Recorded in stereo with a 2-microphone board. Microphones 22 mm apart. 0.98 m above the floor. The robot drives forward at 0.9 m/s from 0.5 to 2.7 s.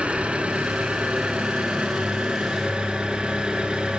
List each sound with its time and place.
0.0 s an engine running: 75° right (ahead or behind), 2.5 m; by 4.0 s 50° right (ahead or behind), 3.5 m